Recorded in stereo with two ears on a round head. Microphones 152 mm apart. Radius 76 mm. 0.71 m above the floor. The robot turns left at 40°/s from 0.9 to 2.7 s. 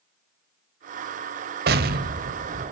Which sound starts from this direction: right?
An explosion, at 1.7 s.